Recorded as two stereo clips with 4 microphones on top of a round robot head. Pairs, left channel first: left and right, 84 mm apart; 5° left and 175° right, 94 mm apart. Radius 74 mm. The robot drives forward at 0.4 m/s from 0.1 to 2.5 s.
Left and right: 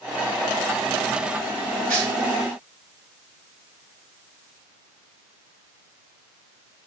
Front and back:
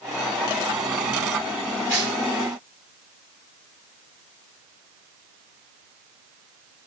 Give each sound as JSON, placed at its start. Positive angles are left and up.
{"t": 1.9, "sound": "tearing paper", "azimuth_deg": -110, "distance_m": 2.0}